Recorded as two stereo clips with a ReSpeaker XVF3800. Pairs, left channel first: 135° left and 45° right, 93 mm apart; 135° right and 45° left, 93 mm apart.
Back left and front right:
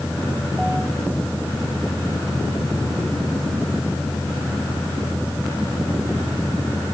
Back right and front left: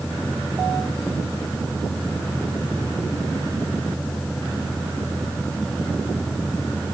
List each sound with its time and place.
Only background noise.